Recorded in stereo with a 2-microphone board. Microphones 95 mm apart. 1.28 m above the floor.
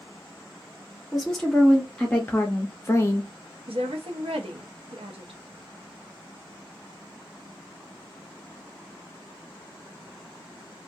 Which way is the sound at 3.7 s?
75° right (ahead or behind).